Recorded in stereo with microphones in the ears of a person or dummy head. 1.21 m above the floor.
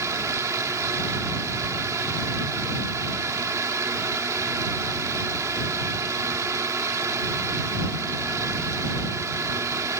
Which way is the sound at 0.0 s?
15° right (ahead or behind).